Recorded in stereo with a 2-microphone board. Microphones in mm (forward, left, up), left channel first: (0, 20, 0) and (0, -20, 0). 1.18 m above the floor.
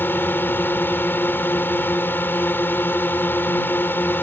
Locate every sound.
0.0 s a drone: 70° left (ahead or behind)